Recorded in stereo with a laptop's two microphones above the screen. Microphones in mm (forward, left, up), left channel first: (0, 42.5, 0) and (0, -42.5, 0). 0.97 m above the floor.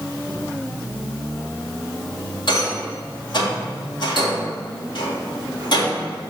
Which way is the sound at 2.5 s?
65° left (ahead or behind).